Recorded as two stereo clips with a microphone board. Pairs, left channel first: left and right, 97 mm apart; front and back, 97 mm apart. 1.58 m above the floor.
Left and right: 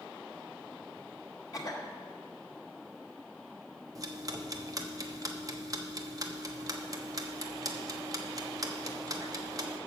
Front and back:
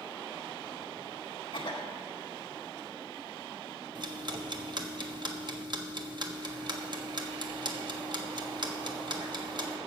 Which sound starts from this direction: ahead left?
A cough, at 1.5 s.